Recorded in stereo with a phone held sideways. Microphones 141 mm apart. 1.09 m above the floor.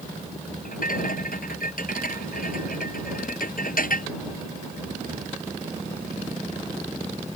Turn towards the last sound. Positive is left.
turn(degrees=75)  # may be behind; listen again after turning